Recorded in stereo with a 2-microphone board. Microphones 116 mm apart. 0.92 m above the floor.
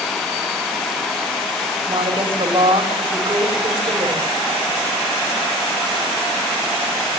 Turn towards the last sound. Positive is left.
turn(degrees=-60)  # may be behind; listen again after turning